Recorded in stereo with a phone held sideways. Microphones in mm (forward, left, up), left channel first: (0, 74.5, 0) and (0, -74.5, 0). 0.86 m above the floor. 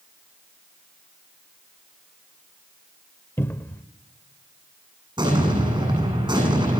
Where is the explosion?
30° right (ahead or behind), 8.5 m.